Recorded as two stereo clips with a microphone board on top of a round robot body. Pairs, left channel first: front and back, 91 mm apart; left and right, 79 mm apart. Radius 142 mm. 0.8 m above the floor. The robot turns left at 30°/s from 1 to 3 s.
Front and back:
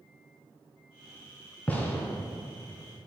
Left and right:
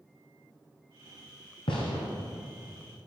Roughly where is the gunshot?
Left.